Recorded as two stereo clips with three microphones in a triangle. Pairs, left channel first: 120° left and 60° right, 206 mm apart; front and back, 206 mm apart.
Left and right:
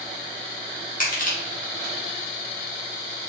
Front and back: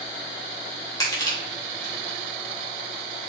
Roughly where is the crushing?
Left.